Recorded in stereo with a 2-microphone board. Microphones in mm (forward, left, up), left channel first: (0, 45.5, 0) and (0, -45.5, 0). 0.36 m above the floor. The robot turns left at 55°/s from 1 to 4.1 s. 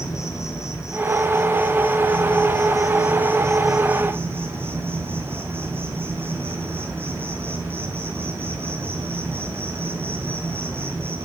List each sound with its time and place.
0.0 s an insect: 145° left, 1.2 m; by 11.2 s 25° right, 1.2 m